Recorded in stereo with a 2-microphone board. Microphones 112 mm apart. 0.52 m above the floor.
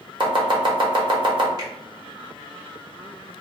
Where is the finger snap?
35° right (ahead or behind), 1.5 m.